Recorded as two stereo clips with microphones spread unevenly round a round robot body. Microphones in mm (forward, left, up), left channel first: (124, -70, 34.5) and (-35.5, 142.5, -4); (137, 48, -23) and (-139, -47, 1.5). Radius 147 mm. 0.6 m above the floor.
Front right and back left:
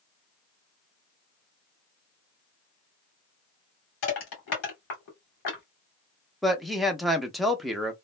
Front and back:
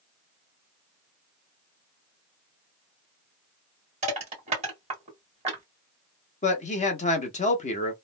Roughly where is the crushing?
Right.